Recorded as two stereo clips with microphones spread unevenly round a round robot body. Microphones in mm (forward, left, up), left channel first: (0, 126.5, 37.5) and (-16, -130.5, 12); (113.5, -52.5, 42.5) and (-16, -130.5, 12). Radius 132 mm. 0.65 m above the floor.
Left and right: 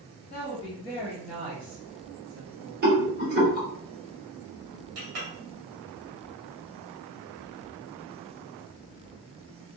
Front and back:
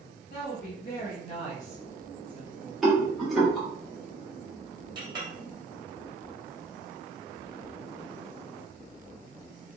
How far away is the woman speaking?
About 1.5 m.